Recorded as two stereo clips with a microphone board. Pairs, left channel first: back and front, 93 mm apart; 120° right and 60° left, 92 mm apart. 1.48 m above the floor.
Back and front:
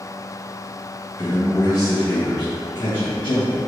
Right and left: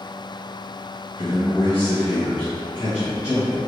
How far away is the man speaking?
About 1.0 m.